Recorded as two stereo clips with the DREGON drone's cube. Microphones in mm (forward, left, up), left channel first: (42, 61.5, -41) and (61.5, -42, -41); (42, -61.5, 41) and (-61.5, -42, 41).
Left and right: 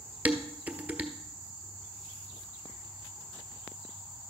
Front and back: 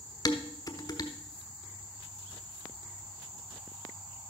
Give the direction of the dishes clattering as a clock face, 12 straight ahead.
1 o'clock.